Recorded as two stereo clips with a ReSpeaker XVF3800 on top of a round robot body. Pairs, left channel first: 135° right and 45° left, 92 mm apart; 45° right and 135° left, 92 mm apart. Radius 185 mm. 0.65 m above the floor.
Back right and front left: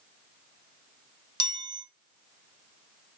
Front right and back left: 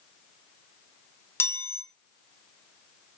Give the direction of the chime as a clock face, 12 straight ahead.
11 o'clock.